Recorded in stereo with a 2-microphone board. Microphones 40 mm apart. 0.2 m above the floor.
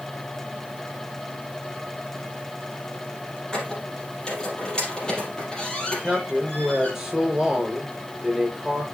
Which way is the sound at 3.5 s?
25° left (ahead or behind).